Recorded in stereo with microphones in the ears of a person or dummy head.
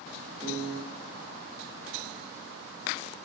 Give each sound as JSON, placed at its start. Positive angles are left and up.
{"t": 0.4, "sound": "a piano", "side_deg": 0, "distance_m": 0.8}